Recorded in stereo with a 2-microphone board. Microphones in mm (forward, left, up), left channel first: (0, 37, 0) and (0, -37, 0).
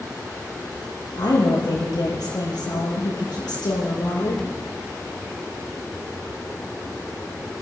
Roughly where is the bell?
No bell in this recording.